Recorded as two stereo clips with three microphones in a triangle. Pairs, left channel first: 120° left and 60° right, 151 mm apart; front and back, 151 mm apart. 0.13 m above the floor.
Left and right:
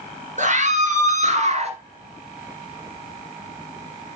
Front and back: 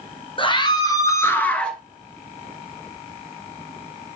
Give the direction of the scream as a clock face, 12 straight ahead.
2 o'clock.